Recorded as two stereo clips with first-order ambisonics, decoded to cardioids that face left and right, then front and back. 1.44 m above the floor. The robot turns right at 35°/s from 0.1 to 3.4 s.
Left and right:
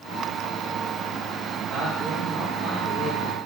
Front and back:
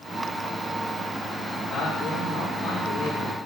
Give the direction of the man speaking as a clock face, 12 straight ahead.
3 o'clock.